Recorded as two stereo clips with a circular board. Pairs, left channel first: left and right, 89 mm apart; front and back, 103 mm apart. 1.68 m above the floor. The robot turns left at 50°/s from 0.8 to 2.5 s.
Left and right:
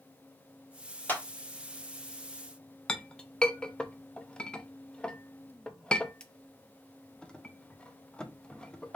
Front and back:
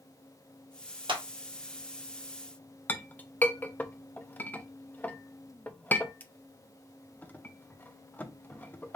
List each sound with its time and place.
1.1 s a clap: 160° left, 1.2 m; by 1.2 s 150° left, 1.2 m
2.9 s a clink: 30° left, 0.5 m